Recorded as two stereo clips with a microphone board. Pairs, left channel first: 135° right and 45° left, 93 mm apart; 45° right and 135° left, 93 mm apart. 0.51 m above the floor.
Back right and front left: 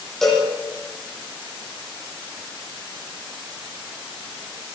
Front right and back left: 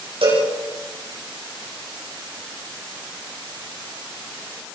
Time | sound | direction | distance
0.2 | a cowbell | 135° left | 10 m